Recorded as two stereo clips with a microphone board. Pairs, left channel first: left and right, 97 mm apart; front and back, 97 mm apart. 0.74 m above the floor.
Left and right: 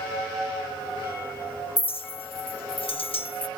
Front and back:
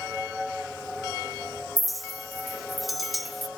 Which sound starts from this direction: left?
A clink, at 1.8 s.